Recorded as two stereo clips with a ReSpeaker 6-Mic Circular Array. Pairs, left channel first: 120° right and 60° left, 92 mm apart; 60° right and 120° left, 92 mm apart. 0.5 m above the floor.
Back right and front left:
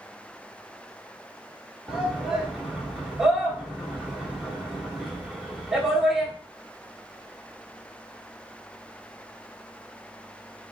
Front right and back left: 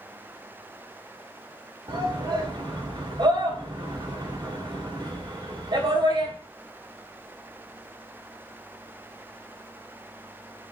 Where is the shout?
140° left, 1.6 m.